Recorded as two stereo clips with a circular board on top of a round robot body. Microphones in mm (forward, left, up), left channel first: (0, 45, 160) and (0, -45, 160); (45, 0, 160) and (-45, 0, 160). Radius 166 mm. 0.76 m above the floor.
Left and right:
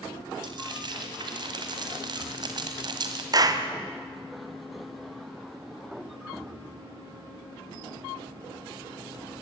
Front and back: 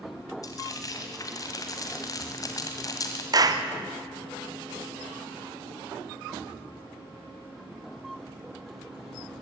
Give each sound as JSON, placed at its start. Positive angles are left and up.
{"t": 0.4, "sound": "frying", "azimuth_deg": -50, "distance_m": 1.9}
{"t": 3.3, "sound": "a clap", "azimuth_deg": -135, "distance_m": 1.6}